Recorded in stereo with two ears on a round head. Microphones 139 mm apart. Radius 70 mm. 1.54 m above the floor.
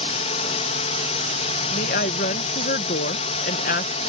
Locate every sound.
0.0 s a drone: 40° left (ahead or behind)
1.7 s a woman speaking: 55° left (ahead or behind)